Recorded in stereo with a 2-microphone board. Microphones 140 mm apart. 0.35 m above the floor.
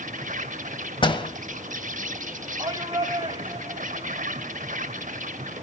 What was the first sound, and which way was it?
An insect, 60° right (ahead or behind).